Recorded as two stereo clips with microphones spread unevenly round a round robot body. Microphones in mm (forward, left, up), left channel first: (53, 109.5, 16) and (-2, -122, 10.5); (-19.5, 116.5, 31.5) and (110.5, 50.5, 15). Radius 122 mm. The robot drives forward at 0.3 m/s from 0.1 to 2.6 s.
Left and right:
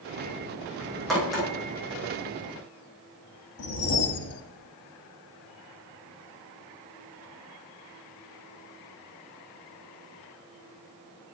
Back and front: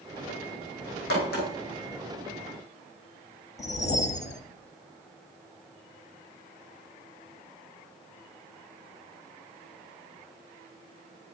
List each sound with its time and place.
1.1 s a crack: 165° left, 3.5 m
3.6 s a whoosh: 110° left, 0.7 m